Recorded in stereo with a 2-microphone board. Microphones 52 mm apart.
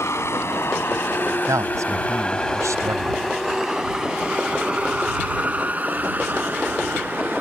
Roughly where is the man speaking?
Right.